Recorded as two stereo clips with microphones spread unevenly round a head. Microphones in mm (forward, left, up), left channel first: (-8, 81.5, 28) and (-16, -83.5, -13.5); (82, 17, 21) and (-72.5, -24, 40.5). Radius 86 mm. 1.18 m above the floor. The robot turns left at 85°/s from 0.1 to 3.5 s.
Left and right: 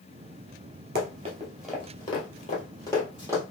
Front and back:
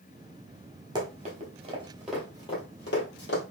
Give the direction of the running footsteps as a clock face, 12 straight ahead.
4 o'clock.